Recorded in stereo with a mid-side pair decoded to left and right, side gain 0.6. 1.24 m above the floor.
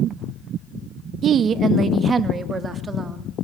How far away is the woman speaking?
About 1.1 m.